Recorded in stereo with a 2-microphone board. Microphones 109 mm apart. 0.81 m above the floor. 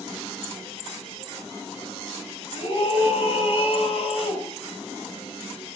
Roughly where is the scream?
Left.